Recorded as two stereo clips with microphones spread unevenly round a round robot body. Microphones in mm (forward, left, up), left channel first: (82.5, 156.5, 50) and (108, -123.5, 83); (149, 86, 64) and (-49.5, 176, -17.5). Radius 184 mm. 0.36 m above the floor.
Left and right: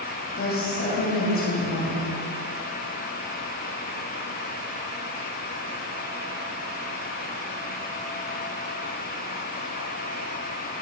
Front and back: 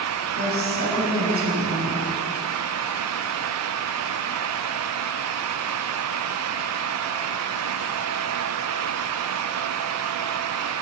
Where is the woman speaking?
145° left, 2.5 m.